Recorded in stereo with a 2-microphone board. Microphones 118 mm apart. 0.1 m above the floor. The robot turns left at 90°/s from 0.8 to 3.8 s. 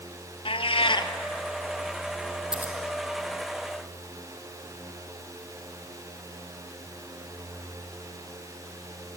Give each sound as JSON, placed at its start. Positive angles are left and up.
{"t": 0.5, "sound": "a cat meowing", "side_deg": 50, "distance_m": 1.0}
{"t": 2.5, "sound": "scissors", "side_deg": -5, "distance_m": 3.0}